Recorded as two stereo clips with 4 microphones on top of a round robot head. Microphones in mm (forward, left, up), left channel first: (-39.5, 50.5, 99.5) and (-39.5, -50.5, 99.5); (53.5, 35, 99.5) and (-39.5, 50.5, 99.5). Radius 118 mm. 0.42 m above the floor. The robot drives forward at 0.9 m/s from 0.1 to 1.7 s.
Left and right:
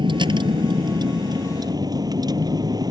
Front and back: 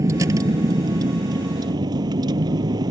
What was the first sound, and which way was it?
A vehicle, 130° right.